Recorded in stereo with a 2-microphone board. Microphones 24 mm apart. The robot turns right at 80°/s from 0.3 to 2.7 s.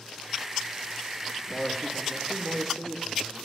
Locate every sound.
1.5 s a man speaking: 130° left, 1.4 m; by 3.4 s 135° right, 1.4 m